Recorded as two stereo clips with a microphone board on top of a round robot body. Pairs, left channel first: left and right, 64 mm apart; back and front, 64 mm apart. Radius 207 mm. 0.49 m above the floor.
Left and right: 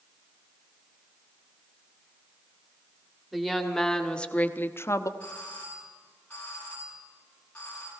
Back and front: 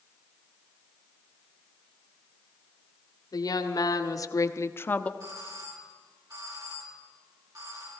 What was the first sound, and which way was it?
A woman speaking, 175° right.